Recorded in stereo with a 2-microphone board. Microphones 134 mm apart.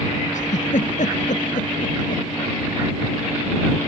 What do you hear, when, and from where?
0.3 s a giggle: 65° left (ahead or behind)